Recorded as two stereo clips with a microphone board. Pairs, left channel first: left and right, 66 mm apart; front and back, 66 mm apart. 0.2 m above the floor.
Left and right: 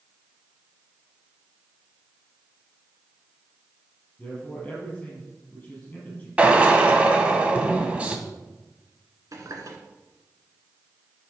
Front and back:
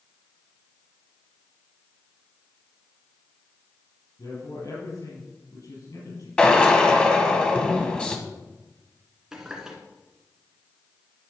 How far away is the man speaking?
About 4.5 m.